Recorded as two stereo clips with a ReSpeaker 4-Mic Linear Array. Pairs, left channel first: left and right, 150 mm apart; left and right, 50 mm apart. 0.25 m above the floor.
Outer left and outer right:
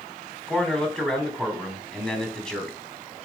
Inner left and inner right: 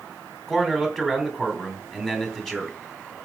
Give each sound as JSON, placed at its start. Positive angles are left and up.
{"t": 0.5, "sound": "a man speaking", "side_deg": 5, "distance_m": 2.5}